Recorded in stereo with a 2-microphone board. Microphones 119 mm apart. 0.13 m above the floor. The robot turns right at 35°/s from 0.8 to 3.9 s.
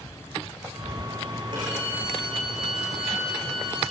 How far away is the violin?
About 8.5 m.